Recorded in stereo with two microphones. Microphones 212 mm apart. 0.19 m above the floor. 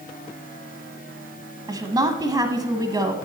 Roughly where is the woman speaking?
Centre.